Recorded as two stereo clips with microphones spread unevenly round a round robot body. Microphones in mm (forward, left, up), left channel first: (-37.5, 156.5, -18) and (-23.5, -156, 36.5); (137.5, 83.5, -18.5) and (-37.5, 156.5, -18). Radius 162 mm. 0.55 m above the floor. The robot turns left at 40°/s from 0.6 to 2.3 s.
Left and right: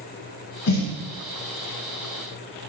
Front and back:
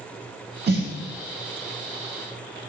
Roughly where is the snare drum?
Behind left.